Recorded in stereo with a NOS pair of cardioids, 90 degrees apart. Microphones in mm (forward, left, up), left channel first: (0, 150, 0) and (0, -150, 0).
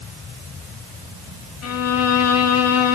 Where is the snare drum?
No snare drum in this recording.